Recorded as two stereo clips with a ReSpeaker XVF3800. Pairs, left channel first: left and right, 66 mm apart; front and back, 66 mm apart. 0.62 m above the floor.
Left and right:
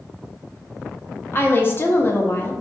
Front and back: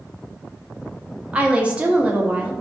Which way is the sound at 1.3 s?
120° left.